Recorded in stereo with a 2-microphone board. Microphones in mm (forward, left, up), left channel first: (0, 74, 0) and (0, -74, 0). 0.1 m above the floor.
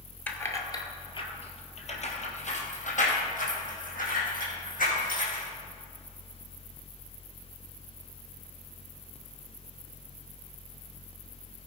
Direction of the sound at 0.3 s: 10° left (ahead or behind).